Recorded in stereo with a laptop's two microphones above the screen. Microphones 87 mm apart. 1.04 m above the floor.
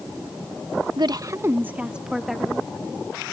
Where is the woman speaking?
60° right (ahead or behind); by 2.7 s 5° left (ahead or behind).